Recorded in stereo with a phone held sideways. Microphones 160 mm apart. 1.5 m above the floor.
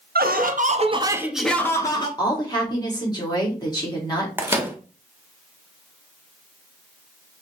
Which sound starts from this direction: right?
Laughter, at 0.1 s.